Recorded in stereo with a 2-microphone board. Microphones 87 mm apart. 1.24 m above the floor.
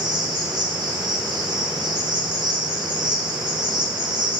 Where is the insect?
60° right (ahead or behind), 2 m.